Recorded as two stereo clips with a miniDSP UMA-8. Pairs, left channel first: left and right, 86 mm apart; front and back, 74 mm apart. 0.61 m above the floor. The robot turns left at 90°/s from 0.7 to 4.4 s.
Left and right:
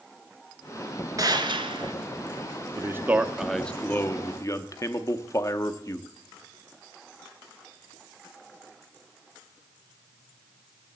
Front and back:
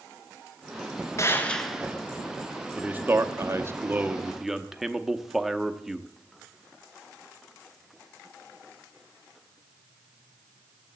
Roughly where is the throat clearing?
I don't hear throat clearing.